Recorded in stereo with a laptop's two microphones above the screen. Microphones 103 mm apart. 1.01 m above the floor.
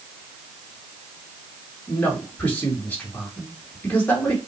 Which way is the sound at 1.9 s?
25° left (ahead or behind).